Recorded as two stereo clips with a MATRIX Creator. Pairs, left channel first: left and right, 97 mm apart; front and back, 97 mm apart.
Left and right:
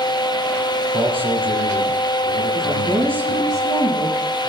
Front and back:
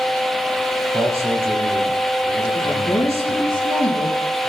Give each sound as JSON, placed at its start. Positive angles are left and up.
{"t": 0.9, "sound": "a man speaking", "azimuth_deg": -120, "distance_m": 7.5}
{"t": 2.5, "sound": "a woman speaking", "azimuth_deg": -40, "distance_m": 7.5}